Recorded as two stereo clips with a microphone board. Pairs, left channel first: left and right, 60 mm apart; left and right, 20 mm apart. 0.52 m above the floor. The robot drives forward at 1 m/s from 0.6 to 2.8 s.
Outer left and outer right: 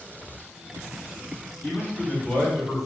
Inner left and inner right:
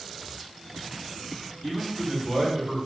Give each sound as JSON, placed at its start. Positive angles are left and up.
{"t": 1.6, "sound": "a man speaking", "side_deg": 20, "distance_m": 1.5}